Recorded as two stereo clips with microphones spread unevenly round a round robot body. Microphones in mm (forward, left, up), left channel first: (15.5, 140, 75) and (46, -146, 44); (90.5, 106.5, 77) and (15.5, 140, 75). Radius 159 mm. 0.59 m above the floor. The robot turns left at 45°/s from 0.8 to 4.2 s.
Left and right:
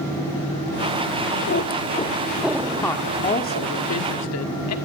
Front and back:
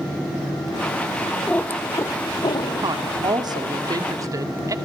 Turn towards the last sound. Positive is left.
turn(degrees=120)